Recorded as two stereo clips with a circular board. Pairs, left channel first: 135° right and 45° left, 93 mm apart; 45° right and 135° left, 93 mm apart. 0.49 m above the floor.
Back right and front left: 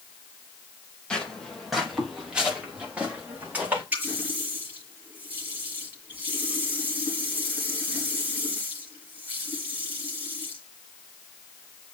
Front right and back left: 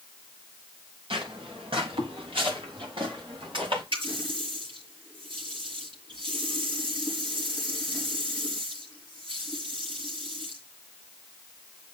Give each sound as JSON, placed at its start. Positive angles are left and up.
{"t": 1.1, "sound": "footsteps", "azimuth_deg": 145, "distance_m": 3.5}
{"t": 3.9, "sound": "a running tap", "azimuth_deg": 115, "distance_m": 7.5}